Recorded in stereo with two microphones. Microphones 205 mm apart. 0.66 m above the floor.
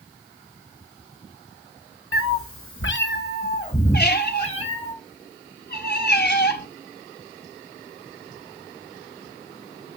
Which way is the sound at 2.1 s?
70° left (ahead or behind).